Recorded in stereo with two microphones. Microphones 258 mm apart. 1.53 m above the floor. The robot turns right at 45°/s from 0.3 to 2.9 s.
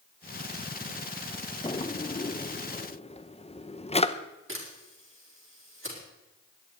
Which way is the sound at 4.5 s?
50° right (ahead or behind).